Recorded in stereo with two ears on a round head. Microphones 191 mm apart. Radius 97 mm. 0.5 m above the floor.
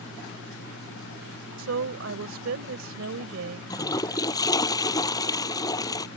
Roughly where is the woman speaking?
Right.